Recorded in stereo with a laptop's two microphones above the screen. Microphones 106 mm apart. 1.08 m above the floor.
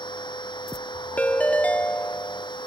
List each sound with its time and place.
0.0 s a machine running: 45° left (ahead or behind)
1.2 s a ringtone: 15° left (ahead or behind)